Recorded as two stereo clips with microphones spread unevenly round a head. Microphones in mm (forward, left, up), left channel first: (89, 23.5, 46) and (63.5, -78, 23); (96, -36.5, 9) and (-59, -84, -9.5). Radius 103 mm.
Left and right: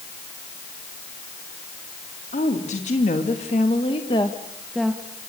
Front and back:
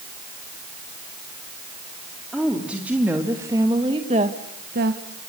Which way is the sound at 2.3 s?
110° left.